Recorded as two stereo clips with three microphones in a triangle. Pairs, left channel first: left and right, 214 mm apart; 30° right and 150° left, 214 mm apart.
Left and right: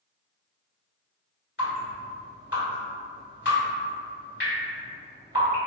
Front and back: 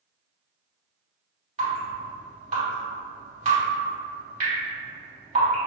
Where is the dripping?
105° left, 1.8 m.